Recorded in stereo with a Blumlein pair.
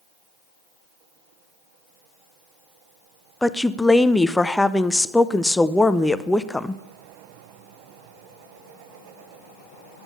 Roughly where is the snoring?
I don't hear snoring.